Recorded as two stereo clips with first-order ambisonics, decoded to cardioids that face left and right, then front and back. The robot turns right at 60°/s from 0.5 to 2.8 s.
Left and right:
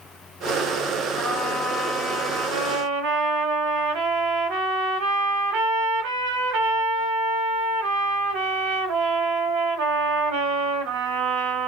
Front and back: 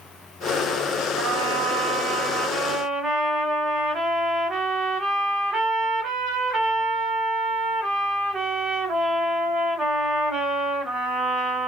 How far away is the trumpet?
About 1.4 m.